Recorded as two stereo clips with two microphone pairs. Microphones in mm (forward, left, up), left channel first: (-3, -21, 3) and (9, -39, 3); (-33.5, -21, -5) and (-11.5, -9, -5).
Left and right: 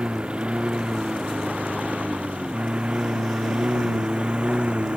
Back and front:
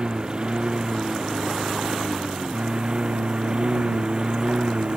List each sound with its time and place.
0.0 s a lawn mower: 25° right; by 5.0 s 20° right